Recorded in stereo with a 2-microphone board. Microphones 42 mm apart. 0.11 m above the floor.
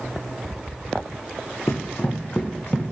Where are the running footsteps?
80° left, 0.6 m; by 2.9 s 20° left (ahead or behind), 0.8 m.